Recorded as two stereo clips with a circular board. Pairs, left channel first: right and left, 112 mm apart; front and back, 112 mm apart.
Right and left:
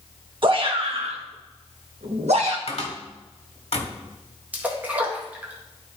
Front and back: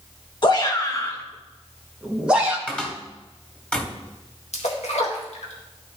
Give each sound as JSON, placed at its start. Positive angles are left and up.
{"t": 0.4, "sound": "a shout", "azimuth_deg": 50, "distance_m": 1.5}
{"t": 2.7, "sound": "a cupboard door", "azimuth_deg": -80, "distance_m": 1.6}
{"t": 4.5, "sound": "a splash", "azimuth_deg": 15, "distance_m": 1.7}